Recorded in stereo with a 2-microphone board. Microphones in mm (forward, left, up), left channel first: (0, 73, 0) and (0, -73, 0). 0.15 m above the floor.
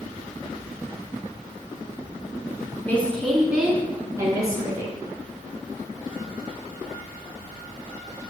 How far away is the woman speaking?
About 1.9 m.